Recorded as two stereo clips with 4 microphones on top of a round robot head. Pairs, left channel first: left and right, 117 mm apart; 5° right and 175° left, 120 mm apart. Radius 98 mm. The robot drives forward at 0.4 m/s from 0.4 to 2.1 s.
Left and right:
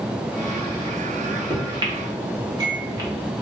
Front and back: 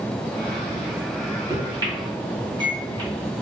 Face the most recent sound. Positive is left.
turn(degrees=-140)